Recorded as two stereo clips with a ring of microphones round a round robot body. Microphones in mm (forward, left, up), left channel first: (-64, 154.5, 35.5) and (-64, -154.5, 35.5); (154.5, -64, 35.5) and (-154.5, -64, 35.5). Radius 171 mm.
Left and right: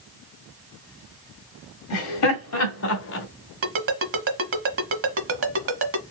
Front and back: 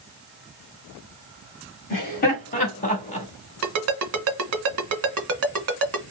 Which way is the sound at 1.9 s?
60° left.